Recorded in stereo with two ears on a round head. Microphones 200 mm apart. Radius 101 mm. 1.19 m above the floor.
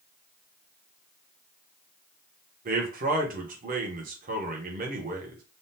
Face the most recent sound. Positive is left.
turn(degrees=-40)  # may be behind; listen again after turning